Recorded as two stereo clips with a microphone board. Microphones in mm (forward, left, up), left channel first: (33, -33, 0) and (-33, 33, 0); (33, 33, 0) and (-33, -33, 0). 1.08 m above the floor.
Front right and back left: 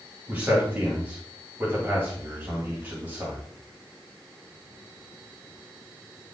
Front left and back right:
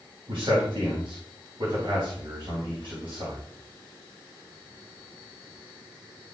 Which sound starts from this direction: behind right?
A man speaking, at 0.3 s.